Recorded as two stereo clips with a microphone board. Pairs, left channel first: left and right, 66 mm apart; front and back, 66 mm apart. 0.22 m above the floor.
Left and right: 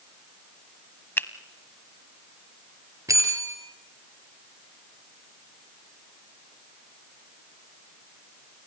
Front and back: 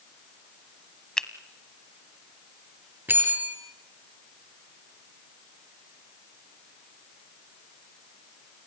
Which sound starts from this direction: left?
A finger snap, at 1.2 s.